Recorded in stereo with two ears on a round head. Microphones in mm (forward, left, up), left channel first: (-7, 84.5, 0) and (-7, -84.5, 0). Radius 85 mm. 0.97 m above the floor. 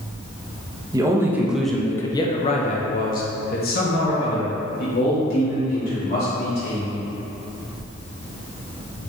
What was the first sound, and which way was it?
A man speaking, 20° right (ahead or behind).